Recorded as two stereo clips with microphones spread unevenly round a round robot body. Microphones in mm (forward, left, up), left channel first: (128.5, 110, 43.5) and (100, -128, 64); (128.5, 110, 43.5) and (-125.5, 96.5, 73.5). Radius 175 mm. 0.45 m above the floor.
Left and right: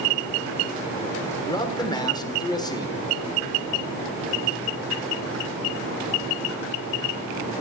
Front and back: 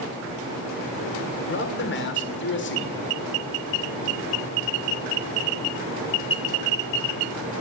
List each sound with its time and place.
1.5 s a man speaking: 15° left, 1.6 m